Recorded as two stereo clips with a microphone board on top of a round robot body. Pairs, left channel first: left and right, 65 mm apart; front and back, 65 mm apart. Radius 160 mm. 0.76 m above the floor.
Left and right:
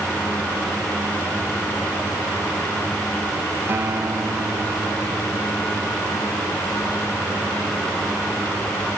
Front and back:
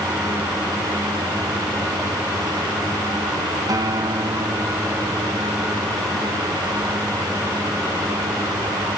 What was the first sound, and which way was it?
A guitar, 150° right.